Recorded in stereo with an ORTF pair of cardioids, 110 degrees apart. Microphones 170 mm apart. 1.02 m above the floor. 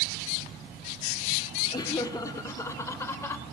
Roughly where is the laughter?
Ahead.